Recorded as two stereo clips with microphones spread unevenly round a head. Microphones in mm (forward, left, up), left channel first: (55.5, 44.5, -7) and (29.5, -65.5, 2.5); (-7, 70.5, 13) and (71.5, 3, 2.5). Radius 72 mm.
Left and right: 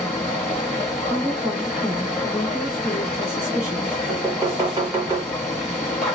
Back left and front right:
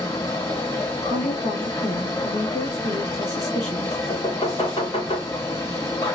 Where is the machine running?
175° left, 1.3 m.